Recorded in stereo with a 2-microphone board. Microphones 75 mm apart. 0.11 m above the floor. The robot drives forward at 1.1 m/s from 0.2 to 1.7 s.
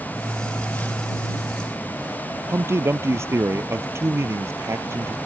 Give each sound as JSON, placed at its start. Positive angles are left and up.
{"t": 2.5, "sound": "a man speaking", "side_deg": -35}